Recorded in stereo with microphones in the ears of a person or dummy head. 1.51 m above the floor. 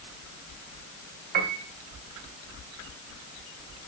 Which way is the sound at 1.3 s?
55° right (ahead or behind).